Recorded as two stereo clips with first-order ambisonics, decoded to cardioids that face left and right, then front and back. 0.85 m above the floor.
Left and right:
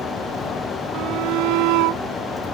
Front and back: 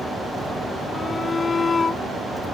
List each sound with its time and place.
0.9 s a shout: 75° right